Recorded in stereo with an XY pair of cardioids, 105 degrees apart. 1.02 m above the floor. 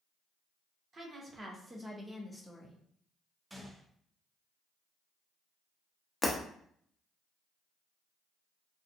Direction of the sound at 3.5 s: 10° right.